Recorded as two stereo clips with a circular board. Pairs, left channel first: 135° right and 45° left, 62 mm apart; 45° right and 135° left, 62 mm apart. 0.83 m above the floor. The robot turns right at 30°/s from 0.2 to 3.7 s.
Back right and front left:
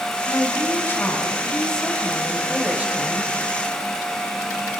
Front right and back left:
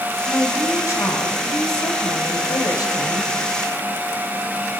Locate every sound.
0.3 s a woman speaking: 100° right, 5 m; by 3.3 s 10° right, 5 m